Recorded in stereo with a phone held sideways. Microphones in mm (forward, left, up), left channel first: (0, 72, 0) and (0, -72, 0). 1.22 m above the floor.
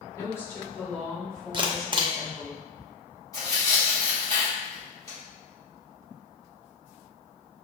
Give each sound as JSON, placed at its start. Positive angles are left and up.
{"t": 0.1, "sound": "a woman speaking", "side_deg": 20, "distance_m": 1.8}
{"t": 1.5, "sound": "a camera shutter", "side_deg": -35, "distance_m": 0.5}
{"t": 3.3, "sound": "tearing paper", "side_deg": 25, "distance_m": 1.9}